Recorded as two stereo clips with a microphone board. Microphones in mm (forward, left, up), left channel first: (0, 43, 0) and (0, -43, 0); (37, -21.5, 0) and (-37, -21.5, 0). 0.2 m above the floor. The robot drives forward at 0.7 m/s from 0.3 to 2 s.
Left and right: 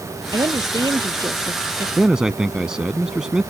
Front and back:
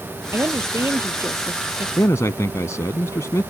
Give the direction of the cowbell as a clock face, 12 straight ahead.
No cowbell in this recording.